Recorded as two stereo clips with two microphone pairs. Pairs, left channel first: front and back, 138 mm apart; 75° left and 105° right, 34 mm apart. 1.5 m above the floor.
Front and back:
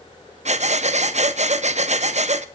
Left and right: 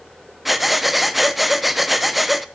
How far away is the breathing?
About 0.6 m.